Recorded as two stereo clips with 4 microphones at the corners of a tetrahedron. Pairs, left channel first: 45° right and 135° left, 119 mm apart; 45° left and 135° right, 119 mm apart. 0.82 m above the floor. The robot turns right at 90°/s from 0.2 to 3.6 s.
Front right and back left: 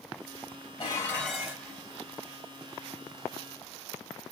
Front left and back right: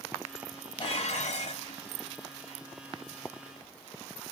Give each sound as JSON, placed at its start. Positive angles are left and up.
{"t": 0.8, "sound": "dishes clattering", "azimuth_deg": 0, "distance_m": 3.0}